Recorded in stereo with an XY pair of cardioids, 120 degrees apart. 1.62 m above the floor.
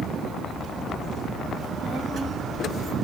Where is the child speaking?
50° right, 2 m.